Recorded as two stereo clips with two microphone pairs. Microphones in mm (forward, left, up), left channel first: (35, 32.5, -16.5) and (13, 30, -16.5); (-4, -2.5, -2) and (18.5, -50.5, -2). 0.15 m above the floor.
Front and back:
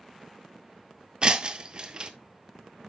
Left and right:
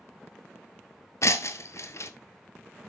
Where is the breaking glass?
140° left, 1.3 m.